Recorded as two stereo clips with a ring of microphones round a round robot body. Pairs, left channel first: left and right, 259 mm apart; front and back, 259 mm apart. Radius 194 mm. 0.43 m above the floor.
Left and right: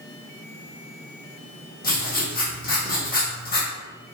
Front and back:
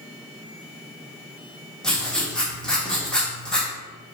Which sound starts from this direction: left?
Writing, at 1.8 s.